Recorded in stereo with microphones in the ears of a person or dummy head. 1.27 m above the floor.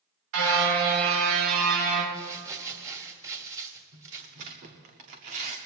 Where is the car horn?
75° right (ahead or behind), 2 m; by 2.0 s 60° right (ahead or behind), 3.5 m.